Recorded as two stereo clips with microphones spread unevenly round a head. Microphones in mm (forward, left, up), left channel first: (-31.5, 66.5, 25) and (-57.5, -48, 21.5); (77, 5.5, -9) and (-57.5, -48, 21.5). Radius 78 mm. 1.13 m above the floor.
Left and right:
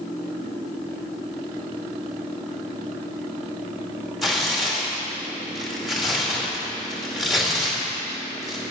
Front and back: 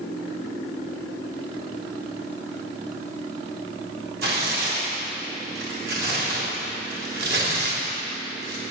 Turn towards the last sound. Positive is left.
turn(degrees=170)